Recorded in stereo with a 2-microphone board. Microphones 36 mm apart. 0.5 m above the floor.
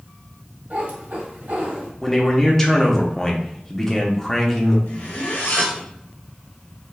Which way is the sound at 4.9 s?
75° left (ahead or behind).